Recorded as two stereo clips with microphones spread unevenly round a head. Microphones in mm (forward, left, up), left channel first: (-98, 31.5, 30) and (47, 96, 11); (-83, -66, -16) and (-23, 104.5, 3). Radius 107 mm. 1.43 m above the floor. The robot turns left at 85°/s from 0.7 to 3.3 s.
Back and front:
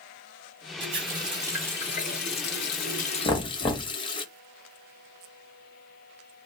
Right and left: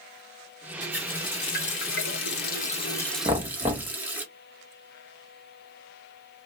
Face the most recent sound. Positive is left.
turn(degrees=140)